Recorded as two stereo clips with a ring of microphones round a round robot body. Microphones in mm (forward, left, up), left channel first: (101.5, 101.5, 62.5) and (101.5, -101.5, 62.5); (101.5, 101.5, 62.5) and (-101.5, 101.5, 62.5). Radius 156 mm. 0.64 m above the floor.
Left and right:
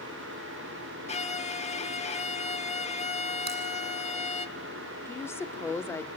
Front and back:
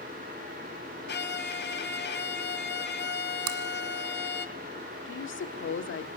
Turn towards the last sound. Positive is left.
turn(degrees=10)